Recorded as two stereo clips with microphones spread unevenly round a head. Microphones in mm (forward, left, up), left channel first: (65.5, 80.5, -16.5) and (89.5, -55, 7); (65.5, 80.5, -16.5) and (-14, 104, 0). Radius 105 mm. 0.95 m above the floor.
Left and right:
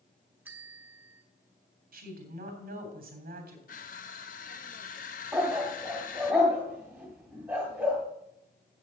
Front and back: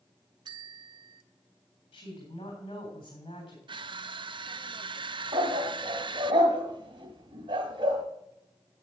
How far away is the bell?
About 0.6 m.